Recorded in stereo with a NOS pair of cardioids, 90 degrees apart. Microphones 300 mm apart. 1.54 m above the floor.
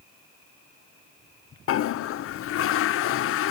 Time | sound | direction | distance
1.7 | a toilet flushing | 50° left | 0.5 m